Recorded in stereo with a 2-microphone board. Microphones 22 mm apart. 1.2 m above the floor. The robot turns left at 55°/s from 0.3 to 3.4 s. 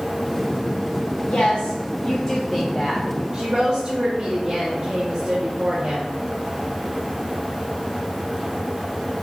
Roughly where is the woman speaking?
Left.